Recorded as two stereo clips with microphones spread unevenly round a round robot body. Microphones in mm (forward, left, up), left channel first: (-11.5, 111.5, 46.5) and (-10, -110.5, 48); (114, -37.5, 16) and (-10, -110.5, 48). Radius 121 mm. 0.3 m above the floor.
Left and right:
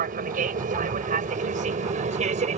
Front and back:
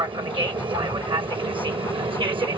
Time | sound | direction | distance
0.0 | an aircraft | 100° right | ?